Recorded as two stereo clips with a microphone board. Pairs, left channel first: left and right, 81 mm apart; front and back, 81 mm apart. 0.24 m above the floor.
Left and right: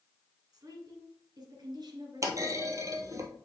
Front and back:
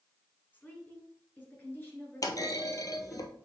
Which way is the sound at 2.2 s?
40° right.